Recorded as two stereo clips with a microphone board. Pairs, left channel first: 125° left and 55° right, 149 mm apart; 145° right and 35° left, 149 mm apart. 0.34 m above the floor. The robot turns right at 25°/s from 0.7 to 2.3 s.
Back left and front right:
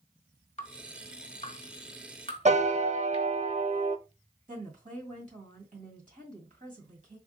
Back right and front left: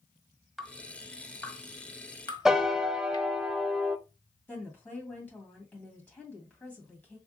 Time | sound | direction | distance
0.6 | dripping | 125° left | 0.9 m
2.5 | a piano | 55° right | 0.5 m
4.5 | a woman speaking | 70° right | 2 m